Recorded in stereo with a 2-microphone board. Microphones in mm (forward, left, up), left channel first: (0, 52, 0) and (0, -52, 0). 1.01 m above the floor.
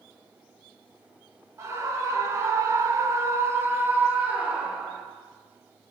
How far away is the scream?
About 1.5 m.